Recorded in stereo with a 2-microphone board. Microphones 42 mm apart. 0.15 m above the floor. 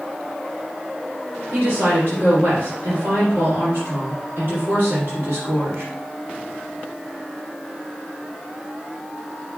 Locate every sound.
1.5 s a woman speaking: 60° right (ahead or behind), 4 m